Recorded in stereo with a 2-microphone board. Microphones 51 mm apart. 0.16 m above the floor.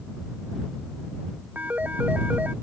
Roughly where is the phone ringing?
Right.